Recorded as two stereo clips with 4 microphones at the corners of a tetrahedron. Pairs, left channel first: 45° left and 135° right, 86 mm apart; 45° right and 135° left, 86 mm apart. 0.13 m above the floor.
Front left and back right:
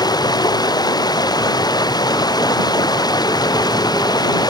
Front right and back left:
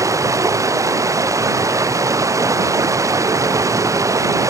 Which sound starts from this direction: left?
Running water, at 0.0 s.